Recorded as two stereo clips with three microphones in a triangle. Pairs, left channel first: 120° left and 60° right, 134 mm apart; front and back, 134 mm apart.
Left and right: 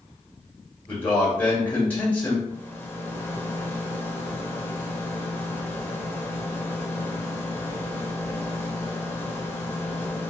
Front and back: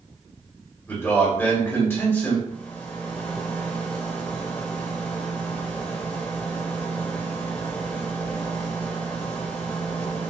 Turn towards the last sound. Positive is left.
turn(degrees=60)